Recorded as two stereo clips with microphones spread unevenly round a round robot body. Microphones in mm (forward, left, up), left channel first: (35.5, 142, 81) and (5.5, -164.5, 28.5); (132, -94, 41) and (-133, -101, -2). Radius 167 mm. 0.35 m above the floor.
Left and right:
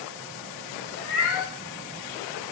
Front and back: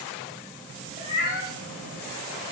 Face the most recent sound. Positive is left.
turn(degrees=30)